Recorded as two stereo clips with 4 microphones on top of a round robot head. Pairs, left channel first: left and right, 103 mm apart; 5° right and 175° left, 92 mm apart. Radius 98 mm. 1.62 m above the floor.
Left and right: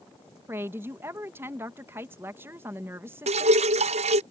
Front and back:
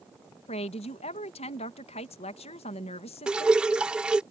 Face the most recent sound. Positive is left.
turn(degrees=-100)